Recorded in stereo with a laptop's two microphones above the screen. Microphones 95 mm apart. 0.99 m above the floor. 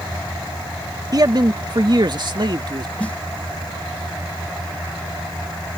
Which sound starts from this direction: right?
A man speaking, at 1.1 s.